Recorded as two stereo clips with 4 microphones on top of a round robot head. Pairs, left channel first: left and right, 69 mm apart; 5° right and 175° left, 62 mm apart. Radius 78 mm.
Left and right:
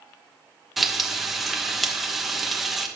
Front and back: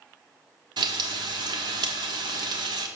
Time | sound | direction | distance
0.8 | frying | straight behind | 1.2 m